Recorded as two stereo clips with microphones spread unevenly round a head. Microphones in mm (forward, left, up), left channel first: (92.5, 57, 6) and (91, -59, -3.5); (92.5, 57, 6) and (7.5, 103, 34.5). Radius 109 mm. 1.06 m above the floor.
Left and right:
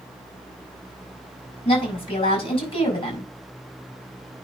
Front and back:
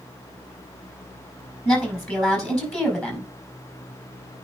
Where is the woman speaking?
45° left, 5.5 m.